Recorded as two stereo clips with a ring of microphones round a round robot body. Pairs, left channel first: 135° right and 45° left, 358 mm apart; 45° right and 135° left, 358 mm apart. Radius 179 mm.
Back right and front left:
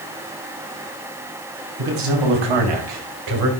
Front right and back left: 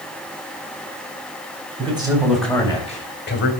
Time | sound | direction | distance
1.8 | a man speaking | 60° left | 3 m